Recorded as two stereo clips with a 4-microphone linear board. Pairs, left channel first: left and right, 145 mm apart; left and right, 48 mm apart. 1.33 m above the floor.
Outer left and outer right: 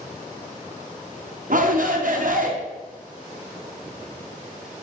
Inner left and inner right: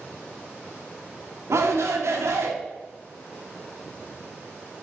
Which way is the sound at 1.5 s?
70° right (ahead or behind).